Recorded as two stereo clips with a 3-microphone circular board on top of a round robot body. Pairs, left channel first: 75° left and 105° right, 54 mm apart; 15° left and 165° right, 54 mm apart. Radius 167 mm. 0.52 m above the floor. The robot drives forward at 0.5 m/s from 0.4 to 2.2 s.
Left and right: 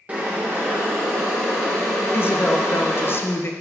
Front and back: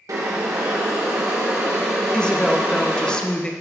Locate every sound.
0.1 s boiling: 170° right, 1.1 m; by 3.1 s 175° right, 2.0 m
2.1 s a woman speaking: 80° left, 0.9 m